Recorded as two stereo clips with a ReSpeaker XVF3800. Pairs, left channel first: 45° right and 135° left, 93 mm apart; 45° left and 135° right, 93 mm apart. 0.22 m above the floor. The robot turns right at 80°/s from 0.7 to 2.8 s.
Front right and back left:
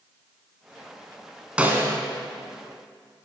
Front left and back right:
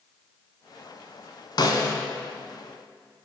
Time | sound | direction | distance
1.6 | a snare drum | 60° left | 1.0 m